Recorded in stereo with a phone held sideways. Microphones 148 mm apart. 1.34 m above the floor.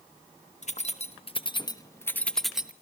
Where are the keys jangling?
50° left (ahead or behind), 1.4 m; by 2.7 s 10° right (ahead or behind), 1.0 m.